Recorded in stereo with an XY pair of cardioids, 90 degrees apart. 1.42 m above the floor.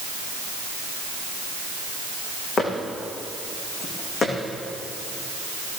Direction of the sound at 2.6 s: 60° left.